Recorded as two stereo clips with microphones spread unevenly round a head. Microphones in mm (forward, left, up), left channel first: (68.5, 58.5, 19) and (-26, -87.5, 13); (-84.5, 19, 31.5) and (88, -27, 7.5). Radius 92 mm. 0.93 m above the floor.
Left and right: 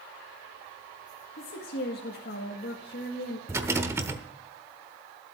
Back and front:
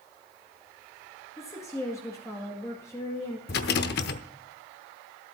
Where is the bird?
No bird in this recording.